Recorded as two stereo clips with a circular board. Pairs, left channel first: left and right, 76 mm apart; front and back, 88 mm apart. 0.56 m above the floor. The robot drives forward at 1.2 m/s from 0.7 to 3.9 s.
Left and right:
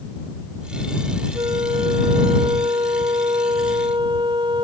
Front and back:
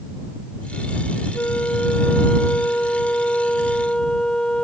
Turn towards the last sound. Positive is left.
turn(degrees=-80)